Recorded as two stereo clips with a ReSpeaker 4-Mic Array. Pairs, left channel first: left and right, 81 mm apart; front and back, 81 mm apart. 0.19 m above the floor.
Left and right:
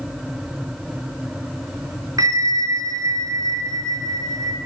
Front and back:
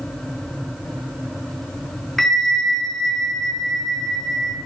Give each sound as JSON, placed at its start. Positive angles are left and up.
{"t": 2.2, "sound": "a bell", "azimuth_deg": -90, "distance_m": 2.5}